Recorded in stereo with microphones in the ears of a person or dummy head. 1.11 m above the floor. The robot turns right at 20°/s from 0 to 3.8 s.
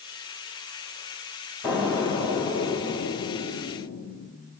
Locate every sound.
1.6 s an explosion: 5° left, 1.8 m; by 4.5 s 45° left, 1.8 m